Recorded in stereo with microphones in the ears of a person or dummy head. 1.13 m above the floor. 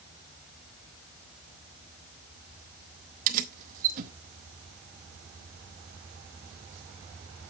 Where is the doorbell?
No doorbell in this recording.